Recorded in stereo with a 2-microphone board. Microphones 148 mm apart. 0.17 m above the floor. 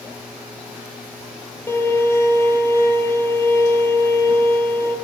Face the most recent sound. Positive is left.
turn(degrees=15)  # may be behind; listen again after turning